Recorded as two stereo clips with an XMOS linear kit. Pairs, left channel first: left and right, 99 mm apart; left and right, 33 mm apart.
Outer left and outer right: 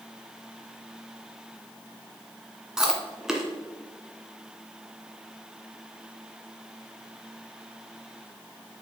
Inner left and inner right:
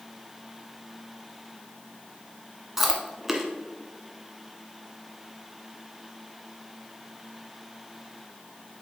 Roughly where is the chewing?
Centre.